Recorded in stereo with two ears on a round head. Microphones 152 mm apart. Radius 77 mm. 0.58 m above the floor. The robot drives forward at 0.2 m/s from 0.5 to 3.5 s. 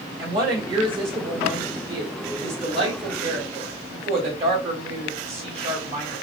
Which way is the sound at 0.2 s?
30° right (ahead or behind).